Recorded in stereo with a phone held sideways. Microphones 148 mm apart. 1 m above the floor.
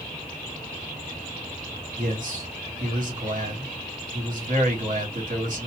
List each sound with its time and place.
2.0 s a man speaking: 60° right (ahead or behind), 1.6 m